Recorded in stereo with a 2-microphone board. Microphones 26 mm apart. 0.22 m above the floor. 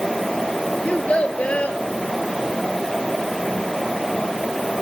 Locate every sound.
0.8 s a child speaking: 55° left (ahead or behind), 3 m